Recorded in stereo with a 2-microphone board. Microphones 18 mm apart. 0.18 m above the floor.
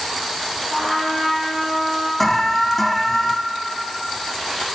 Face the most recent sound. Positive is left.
turn(degrees=10)  # may be behind; listen again after turning